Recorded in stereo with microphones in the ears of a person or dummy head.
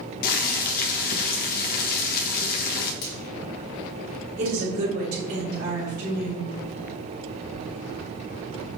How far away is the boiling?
About 1.3 m.